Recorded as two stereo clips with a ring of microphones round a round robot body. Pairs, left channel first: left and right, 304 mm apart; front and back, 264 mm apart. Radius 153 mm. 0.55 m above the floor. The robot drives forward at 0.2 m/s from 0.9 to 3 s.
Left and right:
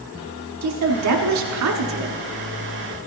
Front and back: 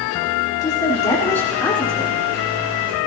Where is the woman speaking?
75° right, 1.4 m; by 2.1 s 90° right, 1.3 m.